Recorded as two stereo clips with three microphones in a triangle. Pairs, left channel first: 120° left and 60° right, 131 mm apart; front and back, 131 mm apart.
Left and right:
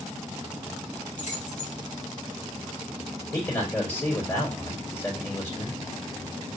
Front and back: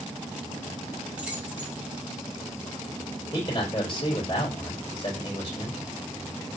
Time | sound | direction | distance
1.2 | keys jangling | 100° left | 2.5 m
3.3 | a man speaking | 55° left | 3 m